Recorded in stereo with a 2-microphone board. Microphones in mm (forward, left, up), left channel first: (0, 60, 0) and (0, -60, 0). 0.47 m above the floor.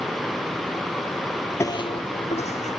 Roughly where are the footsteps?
Left.